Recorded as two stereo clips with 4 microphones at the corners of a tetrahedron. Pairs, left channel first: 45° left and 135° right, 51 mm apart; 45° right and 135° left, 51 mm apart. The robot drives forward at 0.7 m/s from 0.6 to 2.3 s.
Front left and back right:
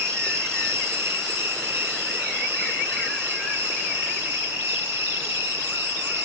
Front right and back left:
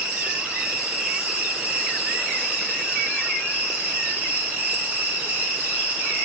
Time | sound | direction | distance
0.0 | an insect | 160° right | 3 m